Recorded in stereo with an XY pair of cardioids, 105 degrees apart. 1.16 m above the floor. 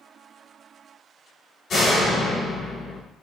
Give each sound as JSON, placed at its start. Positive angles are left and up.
{"t": 1.7, "sound": "a door slam", "azimuth_deg": 60, "distance_m": 3.5}